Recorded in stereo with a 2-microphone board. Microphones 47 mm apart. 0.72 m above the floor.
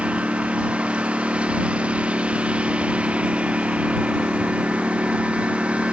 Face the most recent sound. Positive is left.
turn(degrees=-25)  # may be behind; listen again after turning